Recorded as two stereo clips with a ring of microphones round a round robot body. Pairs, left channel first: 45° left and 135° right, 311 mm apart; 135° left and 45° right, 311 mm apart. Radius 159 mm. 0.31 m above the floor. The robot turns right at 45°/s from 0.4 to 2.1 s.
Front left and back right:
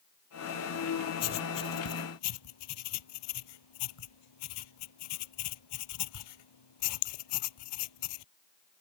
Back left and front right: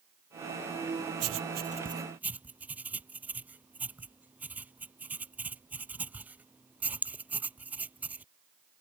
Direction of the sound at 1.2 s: Straight ahead.